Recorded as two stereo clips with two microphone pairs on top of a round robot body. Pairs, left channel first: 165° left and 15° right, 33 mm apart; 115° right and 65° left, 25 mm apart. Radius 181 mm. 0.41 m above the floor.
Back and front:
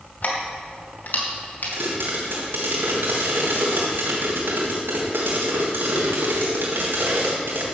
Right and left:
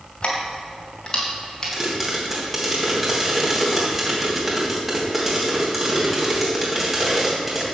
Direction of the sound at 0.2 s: 170° right.